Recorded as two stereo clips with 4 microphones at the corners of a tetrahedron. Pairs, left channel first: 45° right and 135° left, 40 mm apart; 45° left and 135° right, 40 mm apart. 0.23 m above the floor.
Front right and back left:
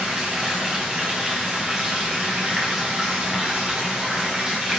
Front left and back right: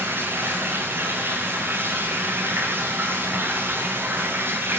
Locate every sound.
0.0 s running water: 155° right, 5.5 m